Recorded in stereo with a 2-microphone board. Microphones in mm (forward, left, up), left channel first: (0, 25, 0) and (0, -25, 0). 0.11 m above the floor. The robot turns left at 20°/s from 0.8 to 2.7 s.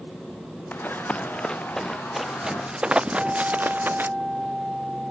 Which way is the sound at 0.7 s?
35° left (ahead or behind).